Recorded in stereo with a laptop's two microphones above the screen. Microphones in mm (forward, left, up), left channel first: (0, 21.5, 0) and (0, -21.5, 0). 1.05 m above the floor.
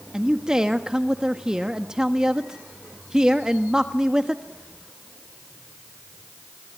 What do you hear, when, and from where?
0.1 s a man speaking: 15° right (ahead or behind), 1.2 m